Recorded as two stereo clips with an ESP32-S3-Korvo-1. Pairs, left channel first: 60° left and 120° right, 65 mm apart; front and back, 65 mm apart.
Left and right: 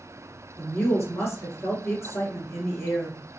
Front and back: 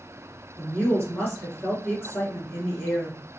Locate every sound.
0.6 s a woman speaking: 50° left, 2 m